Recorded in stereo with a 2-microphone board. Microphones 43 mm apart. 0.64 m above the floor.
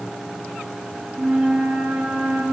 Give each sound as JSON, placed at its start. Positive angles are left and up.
{"t": 1.1, "sound": "a flute", "side_deg": -10, "distance_m": 7.5}